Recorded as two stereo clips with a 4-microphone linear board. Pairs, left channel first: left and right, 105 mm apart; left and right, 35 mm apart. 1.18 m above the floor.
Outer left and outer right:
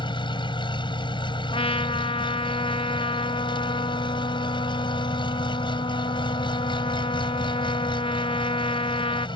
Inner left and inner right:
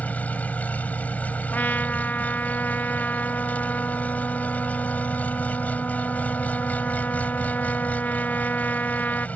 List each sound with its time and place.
0.0 s an engine running: 50° left (ahead or behind)
1.5 s a trumpet: 60° left (ahead or behind)